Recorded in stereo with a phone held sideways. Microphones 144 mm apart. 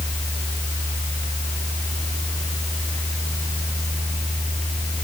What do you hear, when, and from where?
0.0 s a fan: 60° right (ahead or behind)